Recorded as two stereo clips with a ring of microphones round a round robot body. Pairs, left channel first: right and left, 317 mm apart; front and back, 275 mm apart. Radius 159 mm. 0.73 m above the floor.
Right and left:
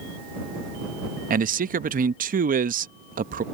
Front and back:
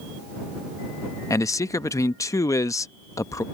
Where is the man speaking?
65° left.